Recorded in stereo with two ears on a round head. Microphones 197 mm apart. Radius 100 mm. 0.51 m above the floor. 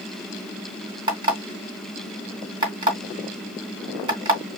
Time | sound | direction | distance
1.1 | an alarm clock | 25° right (ahead or behind) | 2.0 m